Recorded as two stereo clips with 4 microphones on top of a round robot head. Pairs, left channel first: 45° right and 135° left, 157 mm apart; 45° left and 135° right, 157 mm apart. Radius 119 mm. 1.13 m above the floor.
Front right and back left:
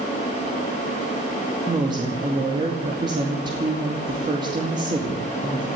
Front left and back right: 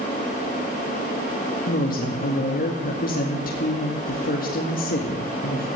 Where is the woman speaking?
75° left, 2.5 m.